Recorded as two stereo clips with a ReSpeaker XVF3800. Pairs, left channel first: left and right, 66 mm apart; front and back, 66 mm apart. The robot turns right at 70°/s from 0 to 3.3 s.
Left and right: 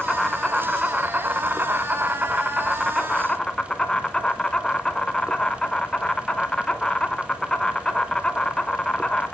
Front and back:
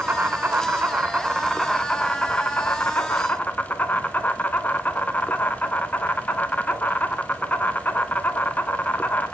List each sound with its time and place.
0.0 s an insect: 155° left, 1.1 m; by 9.3 s 25° left, 1.1 m